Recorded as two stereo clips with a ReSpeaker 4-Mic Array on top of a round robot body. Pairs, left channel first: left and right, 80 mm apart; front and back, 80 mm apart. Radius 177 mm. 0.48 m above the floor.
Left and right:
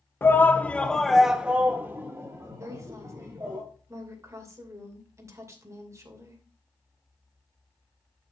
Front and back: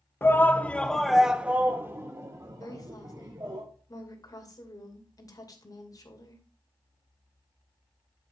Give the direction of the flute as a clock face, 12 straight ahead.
I don't hear a flute.